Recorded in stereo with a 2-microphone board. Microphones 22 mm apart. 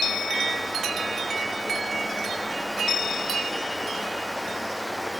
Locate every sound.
Only background noise.